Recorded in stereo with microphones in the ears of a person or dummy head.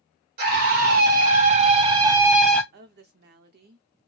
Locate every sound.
0.4 s a scream: 55° right (ahead or behind), 1.3 m; by 2.6 s 5° left (ahead or behind), 0.5 m
2.7 s a woman speaking: 55° right (ahead or behind), 0.7 m